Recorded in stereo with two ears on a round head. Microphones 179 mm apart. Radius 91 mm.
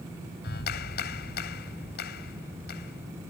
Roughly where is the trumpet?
No trumpet in this recording.